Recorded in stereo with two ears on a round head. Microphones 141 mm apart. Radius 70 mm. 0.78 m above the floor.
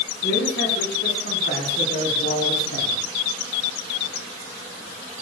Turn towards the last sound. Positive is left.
turn(degrees=85)